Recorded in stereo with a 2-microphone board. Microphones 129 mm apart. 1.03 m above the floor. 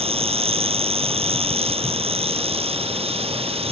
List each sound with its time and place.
0.0 s an insect: 50° right (ahead or behind)